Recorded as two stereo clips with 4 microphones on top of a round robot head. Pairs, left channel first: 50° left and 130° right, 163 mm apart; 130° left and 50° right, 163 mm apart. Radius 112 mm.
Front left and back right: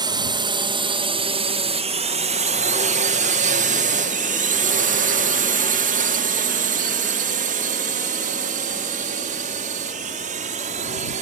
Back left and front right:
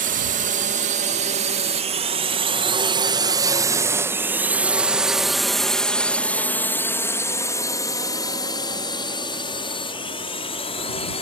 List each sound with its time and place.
0.0 s a drone: 70° right; by 11.2 s 175° right